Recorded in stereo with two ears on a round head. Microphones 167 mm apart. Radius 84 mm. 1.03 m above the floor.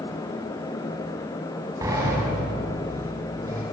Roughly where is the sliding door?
Centre.